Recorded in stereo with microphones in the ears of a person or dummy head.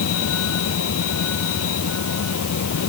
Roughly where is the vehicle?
Left.